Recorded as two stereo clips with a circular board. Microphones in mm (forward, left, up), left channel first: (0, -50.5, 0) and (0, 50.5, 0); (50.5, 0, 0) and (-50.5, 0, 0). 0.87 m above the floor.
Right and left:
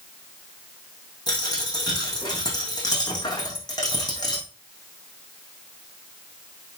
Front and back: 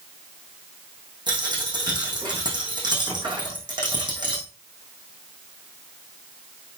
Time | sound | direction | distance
1.3 | a dropped coin | 140° right | 4 m